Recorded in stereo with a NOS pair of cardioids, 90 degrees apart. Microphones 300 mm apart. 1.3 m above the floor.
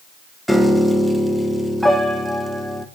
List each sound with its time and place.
0.5 s a piano: straight ahead, 1.3 m